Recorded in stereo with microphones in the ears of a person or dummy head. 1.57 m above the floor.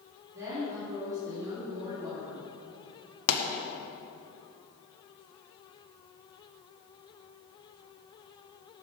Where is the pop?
80° left, 1.5 m.